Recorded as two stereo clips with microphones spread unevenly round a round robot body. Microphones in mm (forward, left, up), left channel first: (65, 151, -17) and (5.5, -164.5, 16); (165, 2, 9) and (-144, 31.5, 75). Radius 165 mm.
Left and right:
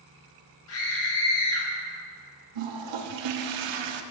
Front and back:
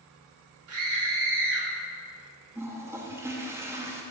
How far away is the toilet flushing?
About 0.6 m.